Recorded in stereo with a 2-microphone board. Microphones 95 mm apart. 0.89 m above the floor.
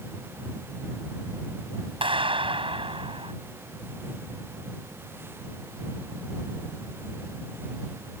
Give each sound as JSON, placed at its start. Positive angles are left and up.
{"t": 2.0, "sound": "a clap", "side_deg": -70}